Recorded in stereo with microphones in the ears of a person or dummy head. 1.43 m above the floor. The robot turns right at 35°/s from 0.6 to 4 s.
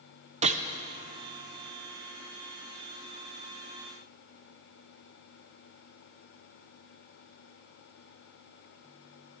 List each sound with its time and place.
0.4 s a gunshot: 35° right (ahead or behind), 0.5 m